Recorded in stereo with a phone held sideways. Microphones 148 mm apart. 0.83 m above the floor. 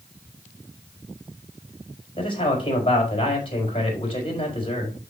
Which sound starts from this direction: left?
A man speaking, at 2.2 s.